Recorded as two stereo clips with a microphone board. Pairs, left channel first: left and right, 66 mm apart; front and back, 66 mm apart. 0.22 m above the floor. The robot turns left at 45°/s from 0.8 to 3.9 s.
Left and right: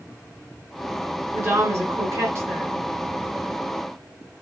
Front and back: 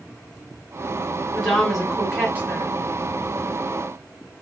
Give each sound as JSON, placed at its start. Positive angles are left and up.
{"t": 1.3, "sound": "a woman speaking", "azimuth_deg": -70, "distance_m": 1.5}